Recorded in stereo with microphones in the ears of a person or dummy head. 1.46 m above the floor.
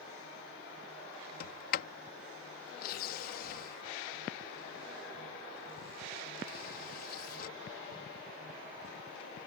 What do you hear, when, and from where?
1.4 s a sliding door: 60° left (ahead or behind)